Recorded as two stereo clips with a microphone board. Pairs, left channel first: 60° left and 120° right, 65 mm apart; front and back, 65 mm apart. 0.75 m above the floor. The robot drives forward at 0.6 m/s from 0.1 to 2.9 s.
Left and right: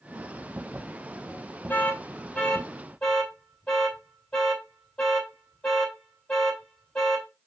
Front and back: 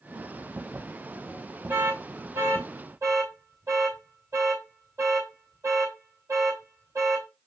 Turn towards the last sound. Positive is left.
turn(degrees=140)